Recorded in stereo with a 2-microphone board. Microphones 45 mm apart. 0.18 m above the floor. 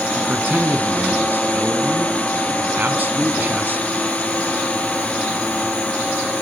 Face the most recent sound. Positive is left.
turn(degrees=-40)  # may be behind; listen again after turning